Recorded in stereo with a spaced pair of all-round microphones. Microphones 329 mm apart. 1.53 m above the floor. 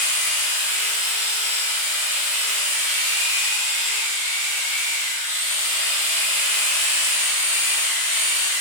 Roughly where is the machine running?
Left.